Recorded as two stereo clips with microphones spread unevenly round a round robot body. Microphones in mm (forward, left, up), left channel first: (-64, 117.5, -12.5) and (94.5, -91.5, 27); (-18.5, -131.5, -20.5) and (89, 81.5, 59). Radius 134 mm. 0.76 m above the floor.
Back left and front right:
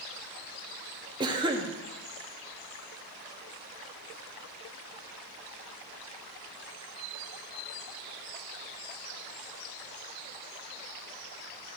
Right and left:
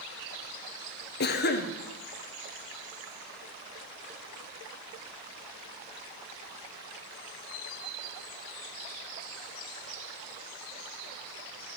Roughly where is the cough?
Behind right.